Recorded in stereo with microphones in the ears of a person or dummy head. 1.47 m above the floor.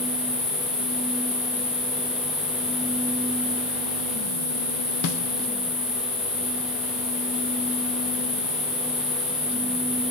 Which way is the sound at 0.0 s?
15° left (ahead or behind).